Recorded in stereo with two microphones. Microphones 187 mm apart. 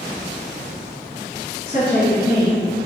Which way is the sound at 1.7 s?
60° left (ahead or behind).